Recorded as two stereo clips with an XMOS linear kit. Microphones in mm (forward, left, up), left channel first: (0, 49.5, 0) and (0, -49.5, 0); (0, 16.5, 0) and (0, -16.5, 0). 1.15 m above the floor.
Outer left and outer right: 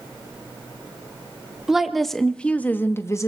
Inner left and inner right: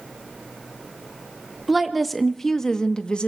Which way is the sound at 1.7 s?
5° right (ahead or behind).